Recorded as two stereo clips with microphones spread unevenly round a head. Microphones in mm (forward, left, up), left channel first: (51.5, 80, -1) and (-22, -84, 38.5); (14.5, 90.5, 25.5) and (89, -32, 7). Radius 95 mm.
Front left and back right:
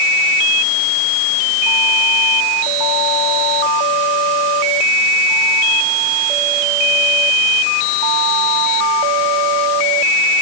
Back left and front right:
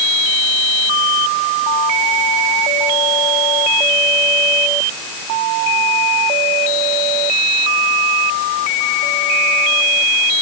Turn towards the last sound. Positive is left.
No sound to turn to.